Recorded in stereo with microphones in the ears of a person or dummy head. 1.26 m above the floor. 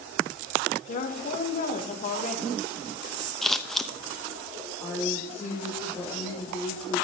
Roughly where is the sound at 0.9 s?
Left.